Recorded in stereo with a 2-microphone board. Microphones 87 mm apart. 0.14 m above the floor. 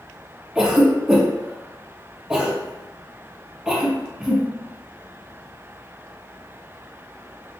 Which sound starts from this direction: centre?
A cough, at 0.6 s.